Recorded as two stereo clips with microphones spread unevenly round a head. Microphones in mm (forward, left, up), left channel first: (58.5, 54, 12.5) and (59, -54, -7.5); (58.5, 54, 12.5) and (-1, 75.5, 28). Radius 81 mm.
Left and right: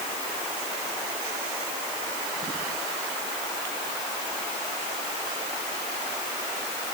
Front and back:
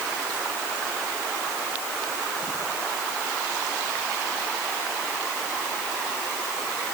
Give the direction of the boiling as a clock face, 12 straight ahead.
I don't hear boiling.